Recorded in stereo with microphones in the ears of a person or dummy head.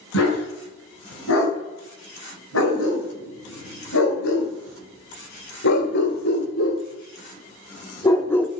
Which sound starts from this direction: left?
A dog barking, at 0.1 s.